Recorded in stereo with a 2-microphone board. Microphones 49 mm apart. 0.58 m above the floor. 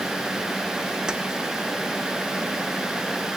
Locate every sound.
1.1 s keys jangling: 15° right (ahead or behind), 0.9 m